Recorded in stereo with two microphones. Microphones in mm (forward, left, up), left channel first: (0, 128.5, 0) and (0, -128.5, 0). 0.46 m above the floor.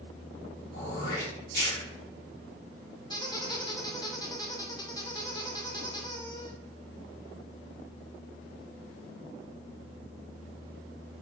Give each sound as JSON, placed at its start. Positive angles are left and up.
{"t": 0.7, "sound": "throat clearing", "side_deg": 55, "distance_m": 1.8}
{"t": 3.1, "sound": "a squeak", "side_deg": 15, "distance_m": 0.6}